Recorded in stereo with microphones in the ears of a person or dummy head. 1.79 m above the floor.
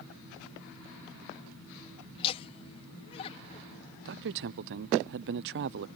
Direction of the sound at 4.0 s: 65° right (ahead or behind).